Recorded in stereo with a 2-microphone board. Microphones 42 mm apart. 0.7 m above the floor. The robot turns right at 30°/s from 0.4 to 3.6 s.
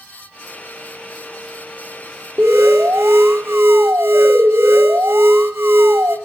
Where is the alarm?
110° right, 1.3 m; by 6.2 s 75° right, 1.3 m.